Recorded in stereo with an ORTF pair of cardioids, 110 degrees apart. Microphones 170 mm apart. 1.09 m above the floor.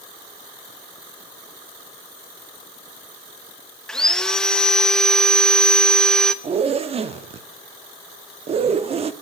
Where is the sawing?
5° left, 0.9 m.